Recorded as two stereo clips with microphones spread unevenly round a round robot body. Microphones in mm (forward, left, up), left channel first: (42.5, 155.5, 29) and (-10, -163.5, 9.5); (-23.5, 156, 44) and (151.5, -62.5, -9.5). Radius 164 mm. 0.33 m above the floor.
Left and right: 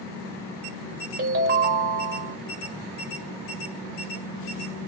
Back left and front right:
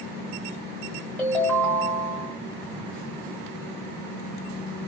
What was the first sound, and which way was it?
A ringtone, 135° right.